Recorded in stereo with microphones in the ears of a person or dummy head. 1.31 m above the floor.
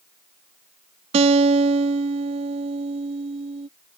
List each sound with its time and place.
1.1 s a guitar: 30° right (ahead or behind)